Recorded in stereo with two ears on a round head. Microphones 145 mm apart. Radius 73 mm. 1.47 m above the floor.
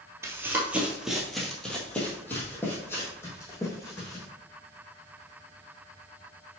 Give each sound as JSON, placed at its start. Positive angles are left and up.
{"t": 0.2, "sound": "running footsteps", "side_deg": -15, "distance_m": 1.5}